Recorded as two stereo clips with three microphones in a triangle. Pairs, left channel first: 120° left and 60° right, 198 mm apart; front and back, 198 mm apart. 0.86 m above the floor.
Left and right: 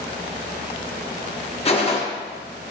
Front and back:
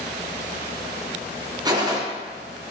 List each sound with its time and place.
1.6 s a gunshot: 130° left, 0.6 m